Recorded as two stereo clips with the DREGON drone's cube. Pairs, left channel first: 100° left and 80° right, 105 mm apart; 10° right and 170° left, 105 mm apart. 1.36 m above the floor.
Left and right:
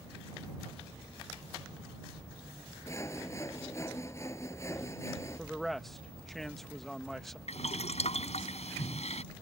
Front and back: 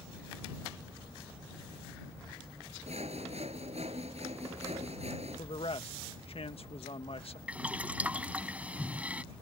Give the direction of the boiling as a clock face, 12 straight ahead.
9 o'clock.